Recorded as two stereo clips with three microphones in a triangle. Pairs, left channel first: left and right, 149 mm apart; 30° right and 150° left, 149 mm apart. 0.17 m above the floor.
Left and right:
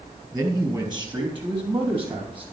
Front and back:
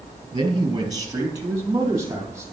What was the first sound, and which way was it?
A man speaking, 155° right.